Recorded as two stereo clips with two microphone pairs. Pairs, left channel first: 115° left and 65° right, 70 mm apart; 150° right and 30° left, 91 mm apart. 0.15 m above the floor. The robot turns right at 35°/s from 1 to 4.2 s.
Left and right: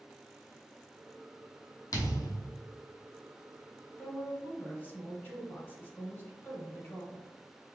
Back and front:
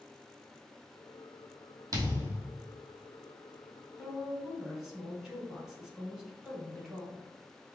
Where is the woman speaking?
95° left, 1.2 m; by 7.3 s 105° left, 1.2 m.